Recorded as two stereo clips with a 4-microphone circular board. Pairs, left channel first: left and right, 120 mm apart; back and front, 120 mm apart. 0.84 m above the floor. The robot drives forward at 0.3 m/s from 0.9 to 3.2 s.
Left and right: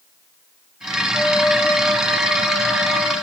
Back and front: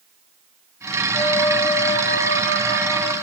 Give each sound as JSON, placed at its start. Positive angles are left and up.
{"t": 1.1, "sound": "a flute", "azimuth_deg": 180, "distance_m": 0.6}